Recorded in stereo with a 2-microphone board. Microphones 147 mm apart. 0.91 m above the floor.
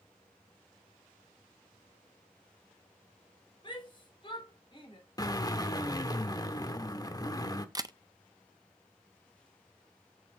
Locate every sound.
3.6 s a shout: 35° left (ahead or behind), 4.5 m
5.2 s a drill: 25° left (ahead or behind), 0.9 m
7.8 s a camera shutter: 25° right (ahead or behind), 0.5 m